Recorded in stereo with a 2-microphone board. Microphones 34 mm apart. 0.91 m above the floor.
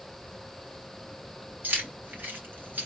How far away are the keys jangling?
About 4 m.